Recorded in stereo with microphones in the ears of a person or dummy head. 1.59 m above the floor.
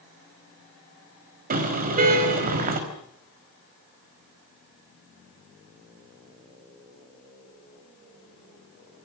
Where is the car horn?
40° right (ahead or behind), 5 m.